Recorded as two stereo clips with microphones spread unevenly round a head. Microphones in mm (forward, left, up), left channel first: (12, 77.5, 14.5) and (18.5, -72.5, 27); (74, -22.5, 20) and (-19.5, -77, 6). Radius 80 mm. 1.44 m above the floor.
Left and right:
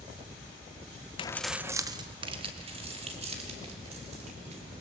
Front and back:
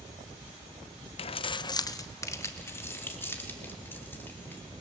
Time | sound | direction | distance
1.2 | keys jangling | 40° left | 0.6 m